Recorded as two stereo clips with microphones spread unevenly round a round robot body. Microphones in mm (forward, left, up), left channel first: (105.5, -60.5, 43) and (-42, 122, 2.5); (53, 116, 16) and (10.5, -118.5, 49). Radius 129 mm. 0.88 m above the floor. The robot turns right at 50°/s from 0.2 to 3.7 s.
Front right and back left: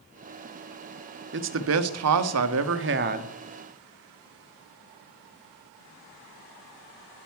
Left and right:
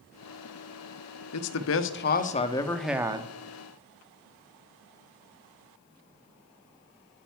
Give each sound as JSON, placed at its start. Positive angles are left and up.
{"t": 1.3, "sound": "a man speaking", "azimuth_deg": 90, "distance_m": 1.2}